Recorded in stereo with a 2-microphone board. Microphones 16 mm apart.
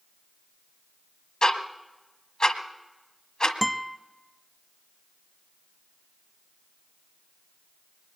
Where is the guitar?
Centre (ahead or behind), 0.5 m.